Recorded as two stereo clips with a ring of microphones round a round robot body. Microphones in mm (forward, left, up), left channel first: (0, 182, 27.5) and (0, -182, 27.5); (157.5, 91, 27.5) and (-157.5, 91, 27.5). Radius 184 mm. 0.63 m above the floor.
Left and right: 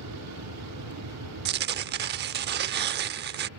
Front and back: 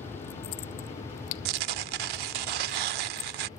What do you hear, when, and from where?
0.0 s an aircraft: 80° right; by 3.6 s 75° right
1.4 s tearing paper: 155° right